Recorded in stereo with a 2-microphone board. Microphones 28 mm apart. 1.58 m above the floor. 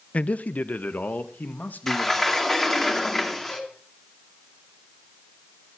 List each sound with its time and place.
0.1 s a man speaking: 50° left (ahead or behind), 0.7 m; by 2.5 s 80° left, 2.5 m
1.9 s a sliding door: 15° left (ahead or behind), 2.5 m
3.5 s dishes clattering: 65° left (ahead or behind), 7.5 m